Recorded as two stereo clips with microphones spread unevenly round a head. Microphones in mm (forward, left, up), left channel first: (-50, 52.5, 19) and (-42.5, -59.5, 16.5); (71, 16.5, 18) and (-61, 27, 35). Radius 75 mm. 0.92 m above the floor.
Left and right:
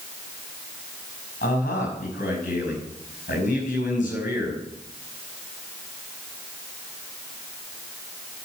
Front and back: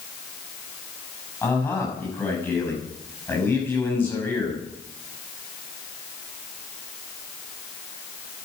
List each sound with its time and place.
1.4 s a man speaking: 70° left, 5.5 m